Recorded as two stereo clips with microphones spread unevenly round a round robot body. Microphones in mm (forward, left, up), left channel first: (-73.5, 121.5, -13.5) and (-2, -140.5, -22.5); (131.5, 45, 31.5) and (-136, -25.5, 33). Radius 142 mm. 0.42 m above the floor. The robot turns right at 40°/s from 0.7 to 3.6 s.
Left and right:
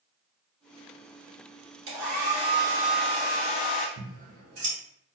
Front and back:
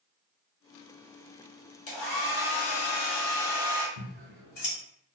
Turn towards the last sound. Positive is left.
turn(degrees=-35)